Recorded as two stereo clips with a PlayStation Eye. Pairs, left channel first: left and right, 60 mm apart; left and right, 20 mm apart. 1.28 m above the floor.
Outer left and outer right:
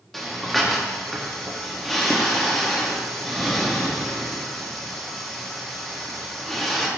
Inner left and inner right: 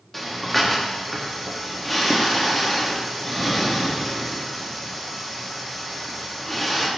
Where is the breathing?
Centre (ahead or behind), 1.7 m.